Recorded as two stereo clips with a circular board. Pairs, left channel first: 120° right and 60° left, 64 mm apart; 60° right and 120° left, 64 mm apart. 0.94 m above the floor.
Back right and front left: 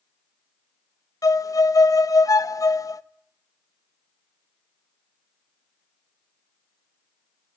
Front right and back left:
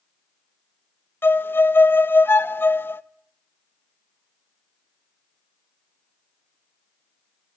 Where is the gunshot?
No gunshot in this recording.